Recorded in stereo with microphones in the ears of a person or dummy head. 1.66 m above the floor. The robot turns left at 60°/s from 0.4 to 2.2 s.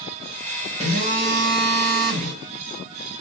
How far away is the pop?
I don't hear a pop.